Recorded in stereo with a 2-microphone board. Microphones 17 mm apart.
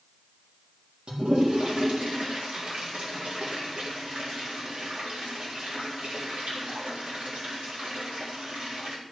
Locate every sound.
1.1 s a toilet flushing: 70° right (ahead or behind), 3.5 m